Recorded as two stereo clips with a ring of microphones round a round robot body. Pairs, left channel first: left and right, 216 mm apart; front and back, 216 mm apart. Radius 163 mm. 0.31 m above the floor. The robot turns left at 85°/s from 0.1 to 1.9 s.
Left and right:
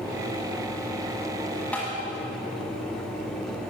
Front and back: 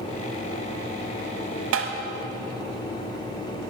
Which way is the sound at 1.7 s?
175° left.